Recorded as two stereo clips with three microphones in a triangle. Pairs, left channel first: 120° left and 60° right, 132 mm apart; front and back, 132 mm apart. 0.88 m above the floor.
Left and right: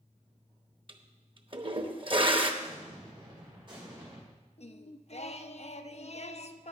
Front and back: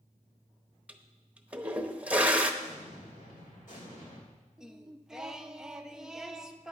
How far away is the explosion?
About 4.5 m.